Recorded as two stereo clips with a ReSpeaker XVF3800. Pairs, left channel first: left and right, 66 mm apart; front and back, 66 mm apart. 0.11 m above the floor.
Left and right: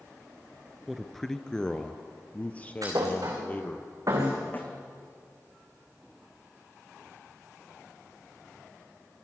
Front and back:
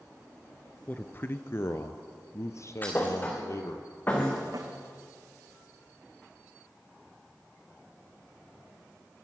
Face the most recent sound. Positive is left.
turn(degrees=150)